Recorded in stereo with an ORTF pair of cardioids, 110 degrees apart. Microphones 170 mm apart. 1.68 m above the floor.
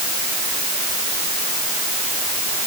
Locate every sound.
Only background noise.